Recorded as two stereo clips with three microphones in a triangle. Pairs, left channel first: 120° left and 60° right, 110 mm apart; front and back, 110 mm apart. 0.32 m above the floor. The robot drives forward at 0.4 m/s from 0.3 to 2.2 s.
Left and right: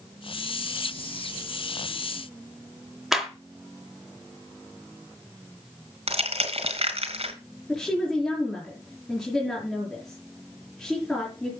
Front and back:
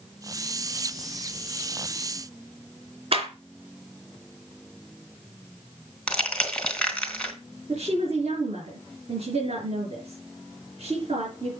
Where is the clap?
145° right, 3.5 m.